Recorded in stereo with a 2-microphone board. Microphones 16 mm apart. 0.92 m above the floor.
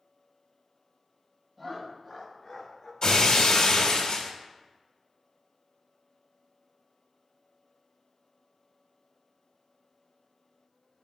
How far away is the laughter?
About 1.9 m.